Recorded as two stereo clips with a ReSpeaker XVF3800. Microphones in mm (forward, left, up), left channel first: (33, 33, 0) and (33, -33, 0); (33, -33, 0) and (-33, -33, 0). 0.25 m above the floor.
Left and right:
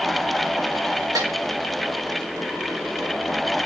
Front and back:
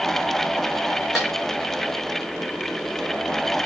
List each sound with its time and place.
1.1 s a snare drum: 90° right, 5.5 m